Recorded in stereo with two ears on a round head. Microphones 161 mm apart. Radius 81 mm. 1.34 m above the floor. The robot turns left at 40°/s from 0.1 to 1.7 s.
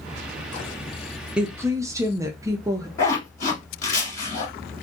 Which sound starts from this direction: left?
A zipper, at 3.0 s.